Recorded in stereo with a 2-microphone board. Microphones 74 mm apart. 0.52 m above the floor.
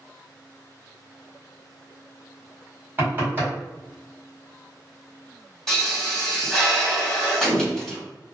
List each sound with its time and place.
3.0 s knocking: 30° right (ahead or behind), 1.4 m
5.7 s a pop: 5° left (ahead or behind), 1.1 m